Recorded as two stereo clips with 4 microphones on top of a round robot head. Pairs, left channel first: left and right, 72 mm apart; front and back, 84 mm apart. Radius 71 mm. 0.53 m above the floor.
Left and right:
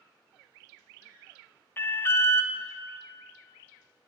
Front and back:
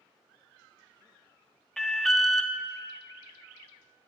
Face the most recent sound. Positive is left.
turn(degrees=85)